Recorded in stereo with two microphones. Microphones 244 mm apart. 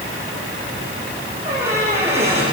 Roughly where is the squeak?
Right.